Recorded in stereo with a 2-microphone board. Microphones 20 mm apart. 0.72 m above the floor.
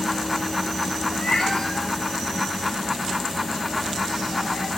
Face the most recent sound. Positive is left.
turn(degrees=65)  # may be behind; listen again after turning